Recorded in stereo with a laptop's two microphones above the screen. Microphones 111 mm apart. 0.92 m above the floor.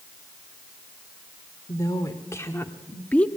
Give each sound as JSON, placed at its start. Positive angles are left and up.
{"t": 1.7, "sound": "a woman speaking", "side_deg": 35, "distance_m": 2.5}